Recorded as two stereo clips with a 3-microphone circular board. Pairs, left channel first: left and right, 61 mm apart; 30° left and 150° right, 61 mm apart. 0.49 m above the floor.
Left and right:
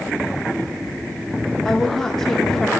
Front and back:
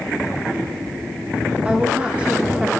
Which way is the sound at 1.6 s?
160° left.